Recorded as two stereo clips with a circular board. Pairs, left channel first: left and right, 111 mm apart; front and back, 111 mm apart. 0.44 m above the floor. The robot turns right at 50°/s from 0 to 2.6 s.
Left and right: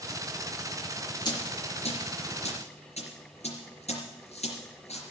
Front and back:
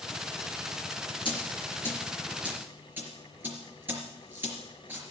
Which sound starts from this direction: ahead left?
A dropped coin, at 1.2 s.